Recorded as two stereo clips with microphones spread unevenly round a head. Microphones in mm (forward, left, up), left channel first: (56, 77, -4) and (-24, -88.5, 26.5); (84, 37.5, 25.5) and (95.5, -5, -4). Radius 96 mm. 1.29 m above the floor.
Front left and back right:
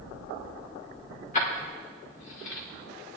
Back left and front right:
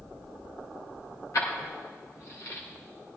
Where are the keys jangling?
120° left, 3 m; by 2.6 s 85° left, 3 m.